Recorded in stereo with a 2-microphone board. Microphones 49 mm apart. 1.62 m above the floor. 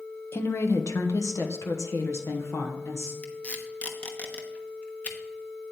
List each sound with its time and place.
0.3 s a woman speaking: 55° left (ahead or behind), 0.8 m; by 3.1 s 70° left (ahead or behind), 1.9 m
3.2 s tape being pulled: 30° left (ahead or behind), 1.1 m